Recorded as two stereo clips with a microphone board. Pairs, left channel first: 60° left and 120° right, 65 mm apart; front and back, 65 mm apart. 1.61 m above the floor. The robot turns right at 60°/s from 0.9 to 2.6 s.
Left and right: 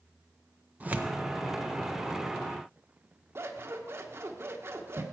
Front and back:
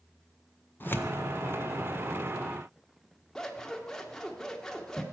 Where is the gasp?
I don't hear a gasp.